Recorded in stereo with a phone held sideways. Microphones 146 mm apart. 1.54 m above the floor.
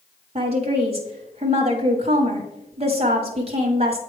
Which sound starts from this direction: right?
A woman speaking, at 0.3 s.